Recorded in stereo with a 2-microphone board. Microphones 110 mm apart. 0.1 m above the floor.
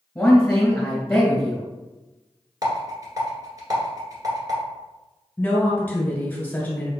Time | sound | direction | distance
0.1 | a man speaking | 15° left (ahead or behind) | 1.8 m
2.6 | a rattle | 30° right (ahead or behind) | 1.8 m
5.4 | a woman speaking | 15° left (ahead or behind) | 1.4 m